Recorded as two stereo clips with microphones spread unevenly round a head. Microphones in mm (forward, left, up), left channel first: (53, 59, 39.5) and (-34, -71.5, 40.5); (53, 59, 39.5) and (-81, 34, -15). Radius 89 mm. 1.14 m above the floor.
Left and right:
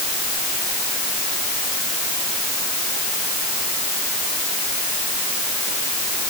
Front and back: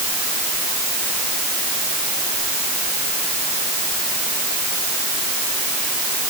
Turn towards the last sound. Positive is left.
No sound to turn to.